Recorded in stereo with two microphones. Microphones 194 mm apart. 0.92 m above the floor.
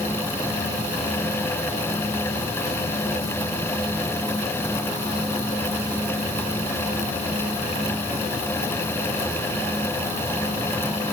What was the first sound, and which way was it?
Only background noise.